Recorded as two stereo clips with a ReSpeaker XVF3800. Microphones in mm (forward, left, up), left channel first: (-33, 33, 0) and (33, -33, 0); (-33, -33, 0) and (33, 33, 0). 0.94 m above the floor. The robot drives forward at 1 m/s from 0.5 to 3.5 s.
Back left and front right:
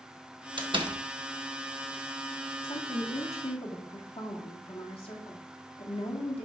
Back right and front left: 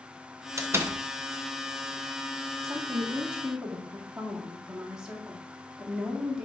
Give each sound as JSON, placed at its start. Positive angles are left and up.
{"t": 0.6, "sound": "a door slam", "azimuth_deg": -15, "distance_m": 1.0}
{"t": 2.6, "sound": "a woman speaking", "azimuth_deg": 100, "distance_m": 1.5}